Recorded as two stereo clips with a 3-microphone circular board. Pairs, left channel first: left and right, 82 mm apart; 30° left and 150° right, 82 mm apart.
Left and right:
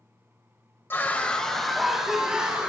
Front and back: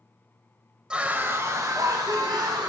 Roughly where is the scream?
Behind left.